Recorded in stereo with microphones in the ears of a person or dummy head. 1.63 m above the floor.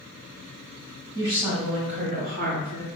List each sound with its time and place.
1.1 s a woman speaking: 25° right (ahead or behind), 1.9 m; by 2.9 s 55° right (ahead or behind), 1.3 m